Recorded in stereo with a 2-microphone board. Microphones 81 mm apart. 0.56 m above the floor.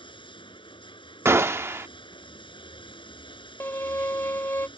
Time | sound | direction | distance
0.0 | running water | 75° left (ahead or behind) | ?
1.2 | a gunshot | 30° right (ahead or behind) | ?
3.6 | a violin | 30° left (ahead or behind) | ?